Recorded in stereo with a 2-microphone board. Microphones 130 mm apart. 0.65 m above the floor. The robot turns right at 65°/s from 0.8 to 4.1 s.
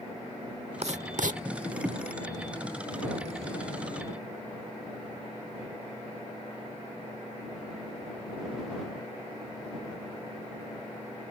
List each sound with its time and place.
0.8 s writing: 55° right (ahead or behind); by 1.4 s 80° right